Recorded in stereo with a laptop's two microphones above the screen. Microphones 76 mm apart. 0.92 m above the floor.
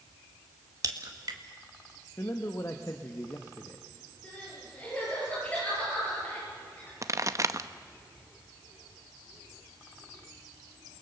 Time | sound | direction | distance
0.8 | a crack | 50° right (ahead or behind) | 1.7 m
2.2 | a man speaking | 40° left (ahead or behind) | 0.9 m
4.2 | crying | 20° left (ahead or behind) | 7.5 m
7.0 | a pop | 40° right (ahead or behind) | 0.8 m